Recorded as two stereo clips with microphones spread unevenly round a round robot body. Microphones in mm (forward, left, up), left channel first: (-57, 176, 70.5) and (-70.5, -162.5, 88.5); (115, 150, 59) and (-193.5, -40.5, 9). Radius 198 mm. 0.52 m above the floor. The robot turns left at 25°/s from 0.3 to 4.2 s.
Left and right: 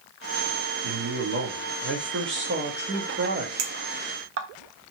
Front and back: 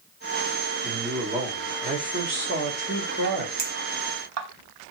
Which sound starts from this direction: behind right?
A clink, at 3.6 s.